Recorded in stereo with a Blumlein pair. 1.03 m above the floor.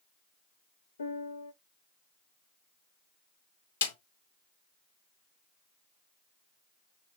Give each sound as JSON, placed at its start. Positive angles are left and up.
{"t": 1.0, "sound": "a piano", "azimuth_deg": 70, "distance_m": 0.6}
{"t": 3.8, "sound": "a snare drum", "azimuth_deg": 65, "distance_m": 1.1}